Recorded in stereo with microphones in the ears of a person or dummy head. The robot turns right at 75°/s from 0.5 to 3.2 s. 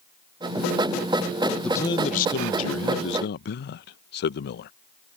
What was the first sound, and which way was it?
A man speaking, 5° left.